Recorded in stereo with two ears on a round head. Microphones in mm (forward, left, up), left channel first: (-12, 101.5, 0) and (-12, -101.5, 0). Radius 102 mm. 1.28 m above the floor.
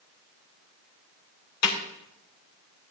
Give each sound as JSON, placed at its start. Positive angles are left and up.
{"t": 1.6, "sound": "a snare drum", "side_deg": 80, "distance_m": 3.5}